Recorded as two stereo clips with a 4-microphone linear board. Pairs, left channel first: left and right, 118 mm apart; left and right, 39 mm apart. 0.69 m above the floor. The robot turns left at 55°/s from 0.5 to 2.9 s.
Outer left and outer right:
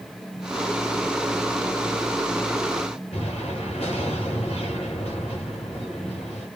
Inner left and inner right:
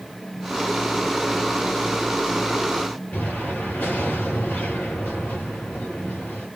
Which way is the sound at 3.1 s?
55° left (ahead or behind).